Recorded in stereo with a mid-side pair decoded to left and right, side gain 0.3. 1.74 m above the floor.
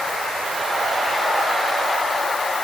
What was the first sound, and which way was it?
Only background noise.